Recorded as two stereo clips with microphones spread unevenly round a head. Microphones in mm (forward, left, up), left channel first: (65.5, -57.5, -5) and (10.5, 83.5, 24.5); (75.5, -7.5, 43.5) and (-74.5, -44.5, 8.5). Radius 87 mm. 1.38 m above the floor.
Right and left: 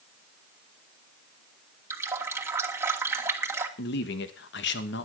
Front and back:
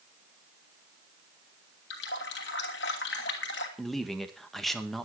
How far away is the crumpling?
No crumpling in this recording.